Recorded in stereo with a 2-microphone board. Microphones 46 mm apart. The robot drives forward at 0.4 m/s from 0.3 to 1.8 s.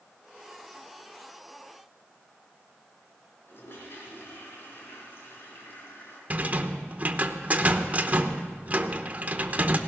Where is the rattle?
35° right (ahead or behind), 0.8 m.